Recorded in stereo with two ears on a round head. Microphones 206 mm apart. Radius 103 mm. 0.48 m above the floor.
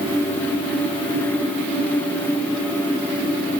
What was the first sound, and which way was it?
Only background noise.